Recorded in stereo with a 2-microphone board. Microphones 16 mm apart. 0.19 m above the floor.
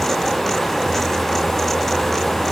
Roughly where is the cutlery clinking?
No cutlery clinking in this recording.